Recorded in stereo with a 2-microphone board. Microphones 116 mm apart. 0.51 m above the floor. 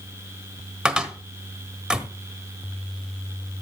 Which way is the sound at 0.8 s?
10° right (ahead or behind).